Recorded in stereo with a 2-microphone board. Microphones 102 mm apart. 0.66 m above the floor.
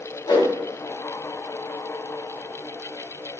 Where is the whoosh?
45° left (ahead or behind), 0.8 m.